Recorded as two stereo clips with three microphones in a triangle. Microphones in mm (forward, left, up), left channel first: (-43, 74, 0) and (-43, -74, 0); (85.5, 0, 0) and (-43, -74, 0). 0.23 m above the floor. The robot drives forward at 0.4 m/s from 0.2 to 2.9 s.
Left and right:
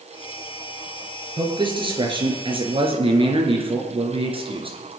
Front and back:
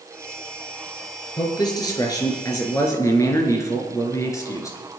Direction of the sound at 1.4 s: 35° right.